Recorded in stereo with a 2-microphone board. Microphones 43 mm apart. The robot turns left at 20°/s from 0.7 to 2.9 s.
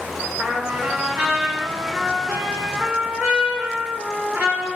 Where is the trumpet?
35° right, 1.6 m; by 4.7 s 80° right, 1.6 m.